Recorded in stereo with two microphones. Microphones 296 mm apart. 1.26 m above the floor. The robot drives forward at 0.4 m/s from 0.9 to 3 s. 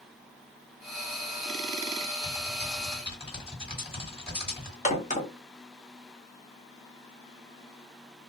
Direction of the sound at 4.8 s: 25° left (ahead or behind).